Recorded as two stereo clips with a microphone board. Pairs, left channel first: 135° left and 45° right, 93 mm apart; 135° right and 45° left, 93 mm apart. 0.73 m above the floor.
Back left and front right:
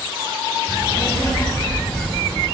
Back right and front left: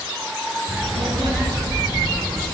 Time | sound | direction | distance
0.7 | a child speaking | 75° left | 3 m